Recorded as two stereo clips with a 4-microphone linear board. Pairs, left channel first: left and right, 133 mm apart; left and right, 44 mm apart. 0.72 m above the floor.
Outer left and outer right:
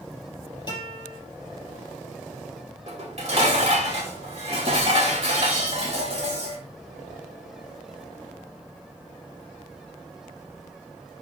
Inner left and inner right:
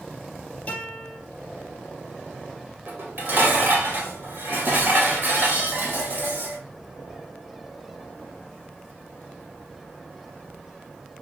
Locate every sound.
0.7 s a guitar: 30° left (ahead or behind), 4.5 m
2.9 s dishes clattering: 50° right (ahead or behind), 2 m